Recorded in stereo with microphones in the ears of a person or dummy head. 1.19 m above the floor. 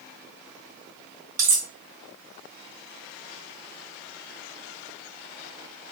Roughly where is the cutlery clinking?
Centre.